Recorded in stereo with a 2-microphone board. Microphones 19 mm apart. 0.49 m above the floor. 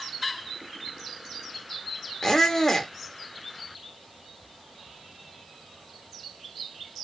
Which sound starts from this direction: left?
A squeak, at 2.2 s.